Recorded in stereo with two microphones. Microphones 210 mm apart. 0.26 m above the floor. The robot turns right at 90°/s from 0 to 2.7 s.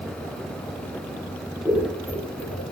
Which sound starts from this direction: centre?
Scissors, at 1.6 s.